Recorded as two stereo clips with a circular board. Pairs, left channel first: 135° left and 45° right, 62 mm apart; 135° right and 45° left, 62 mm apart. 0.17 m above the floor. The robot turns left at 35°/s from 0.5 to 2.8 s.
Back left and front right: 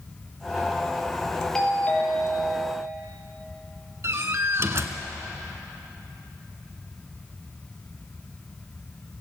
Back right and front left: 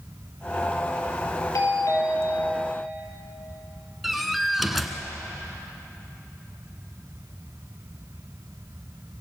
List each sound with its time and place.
1.6 s a doorbell: 145° right, 5.5 m; by 2.7 s 175° left, 5.5 m
4.0 s a door slam: 45° right, 1.6 m